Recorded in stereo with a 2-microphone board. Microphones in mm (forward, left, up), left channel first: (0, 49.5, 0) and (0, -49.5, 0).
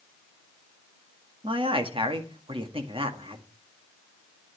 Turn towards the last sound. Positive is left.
turn(degrees=-65)  # may be behind; listen again after turning